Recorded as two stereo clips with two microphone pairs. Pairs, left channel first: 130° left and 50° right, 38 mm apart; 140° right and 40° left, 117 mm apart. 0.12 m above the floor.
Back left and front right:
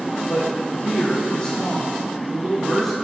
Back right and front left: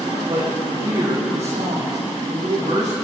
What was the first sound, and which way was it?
A man speaking, 75° left.